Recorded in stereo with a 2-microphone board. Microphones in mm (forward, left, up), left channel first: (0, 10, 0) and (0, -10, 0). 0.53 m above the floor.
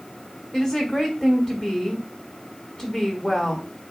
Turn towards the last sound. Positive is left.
turn(degrees=40)  # may be behind; listen again after turning